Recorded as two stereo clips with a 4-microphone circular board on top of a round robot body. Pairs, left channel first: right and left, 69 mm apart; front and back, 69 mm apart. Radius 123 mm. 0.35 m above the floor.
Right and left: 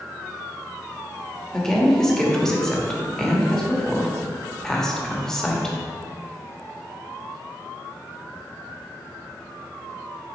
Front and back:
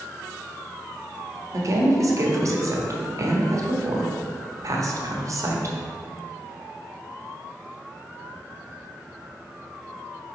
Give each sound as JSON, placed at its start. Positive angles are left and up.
{"t": 1.5, "sound": "a woman speaking", "azimuth_deg": -170, "distance_m": 1.4}